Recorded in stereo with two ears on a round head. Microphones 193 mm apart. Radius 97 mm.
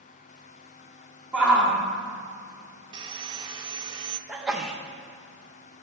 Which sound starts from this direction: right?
Sawing, at 2.9 s.